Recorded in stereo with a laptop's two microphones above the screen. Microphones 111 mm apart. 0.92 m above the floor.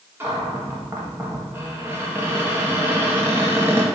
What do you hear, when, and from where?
0.2 s a cupboard door: 20° right (ahead or behind), 1.5 m